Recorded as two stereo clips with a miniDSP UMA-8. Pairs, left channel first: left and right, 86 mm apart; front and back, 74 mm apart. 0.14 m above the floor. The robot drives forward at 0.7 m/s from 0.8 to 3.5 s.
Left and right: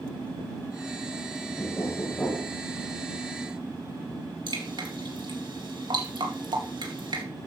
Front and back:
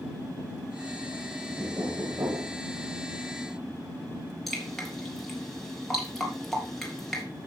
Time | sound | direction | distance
1.6 | knocking | 135° left | 3 m
4.5 | dripping | 85° right | 3 m